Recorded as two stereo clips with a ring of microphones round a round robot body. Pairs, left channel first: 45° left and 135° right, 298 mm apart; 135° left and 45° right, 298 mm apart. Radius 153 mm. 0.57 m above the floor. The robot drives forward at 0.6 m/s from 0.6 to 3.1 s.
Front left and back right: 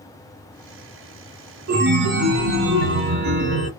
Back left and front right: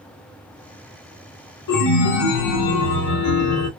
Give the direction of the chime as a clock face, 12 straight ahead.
6 o'clock.